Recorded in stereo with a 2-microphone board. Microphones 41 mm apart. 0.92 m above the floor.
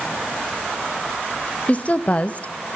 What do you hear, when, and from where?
1.7 s a woman speaking: 35° left (ahead or behind), 0.6 m